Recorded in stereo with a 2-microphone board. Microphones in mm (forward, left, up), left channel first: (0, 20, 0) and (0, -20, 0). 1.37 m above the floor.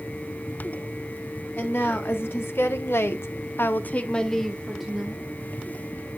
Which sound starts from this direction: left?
A woman speaking, at 1.6 s.